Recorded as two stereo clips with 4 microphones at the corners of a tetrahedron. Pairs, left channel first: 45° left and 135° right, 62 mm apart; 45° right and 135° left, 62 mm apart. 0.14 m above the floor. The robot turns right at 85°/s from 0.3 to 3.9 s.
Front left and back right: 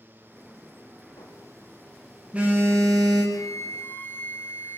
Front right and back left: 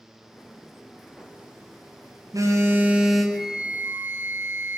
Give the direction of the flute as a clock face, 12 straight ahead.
11 o'clock.